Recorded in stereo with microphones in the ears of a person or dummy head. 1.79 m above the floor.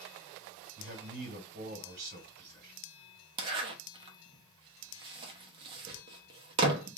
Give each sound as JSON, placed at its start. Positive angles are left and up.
{"t": 0.8, "sound": "a man speaking", "side_deg": -50, "distance_m": 1.6}
{"t": 3.4, "sound": "a zipper", "side_deg": -30, "distance_m": 0.8}